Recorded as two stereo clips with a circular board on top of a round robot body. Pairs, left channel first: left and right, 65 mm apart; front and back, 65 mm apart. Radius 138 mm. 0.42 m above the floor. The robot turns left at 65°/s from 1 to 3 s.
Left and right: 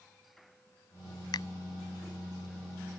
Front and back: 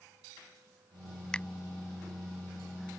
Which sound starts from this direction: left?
A finger snap, at 1.3 s.